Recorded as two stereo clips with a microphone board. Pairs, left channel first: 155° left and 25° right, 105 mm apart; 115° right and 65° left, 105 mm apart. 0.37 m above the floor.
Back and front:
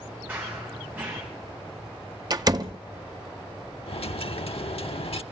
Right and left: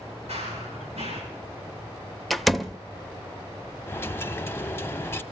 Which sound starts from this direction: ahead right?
A door slam, at 2.3 s.